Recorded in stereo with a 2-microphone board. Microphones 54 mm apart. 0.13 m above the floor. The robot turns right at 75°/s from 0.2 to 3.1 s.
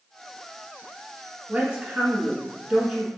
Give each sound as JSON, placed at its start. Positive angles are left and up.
{"t": 1.5, "sound": "a woman speaking", "azimuth_deg": -140, "distance_m": 1.5}